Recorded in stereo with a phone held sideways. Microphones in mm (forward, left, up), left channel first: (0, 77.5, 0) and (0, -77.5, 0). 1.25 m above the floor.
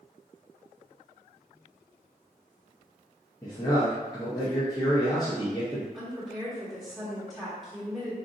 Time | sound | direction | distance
3.4 | a man speaking | 25° left (ahead or behind) | 0.8 m
5.9 | a woman speaking | centre (ahead or behind) | 1.4 m